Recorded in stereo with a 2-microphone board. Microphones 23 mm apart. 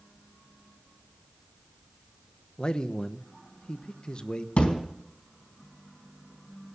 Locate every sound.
2.6 s a man speaking: 45° left (ahead or behind), 1.0 m
4.6 s a thud: 80° left, 4 m